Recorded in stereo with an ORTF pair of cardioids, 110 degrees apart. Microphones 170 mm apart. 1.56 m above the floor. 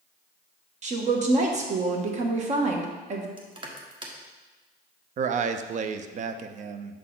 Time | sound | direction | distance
0.8 | a woman speaking | 45° right | 1.1 m
3.4 | crushing | 30° right | 1.1 m
5.2 | a man speaking | 50° right | 0.5 m